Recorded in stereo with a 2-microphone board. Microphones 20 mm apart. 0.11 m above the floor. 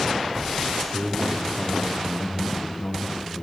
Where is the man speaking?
Centre (ahead or behind), 4 m; by 3.4 s 45° left (ahead or behind), 5.5 m.